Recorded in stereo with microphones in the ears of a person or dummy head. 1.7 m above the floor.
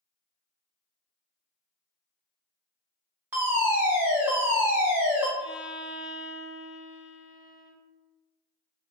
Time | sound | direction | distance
3.3 | a fire alarm | 10° right (ahead or behind) | 0.8 m
5.4 | a violin | 5° right (ahead or behind) | 2.0 m